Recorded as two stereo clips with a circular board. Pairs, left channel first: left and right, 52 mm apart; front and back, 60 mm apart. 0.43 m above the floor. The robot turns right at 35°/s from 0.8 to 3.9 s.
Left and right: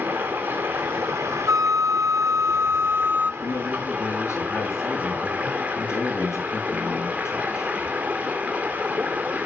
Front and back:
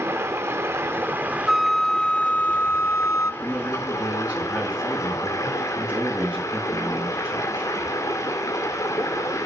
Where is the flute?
95° right, 0.5 m; by 3.3 s 30° right, 0.5 m.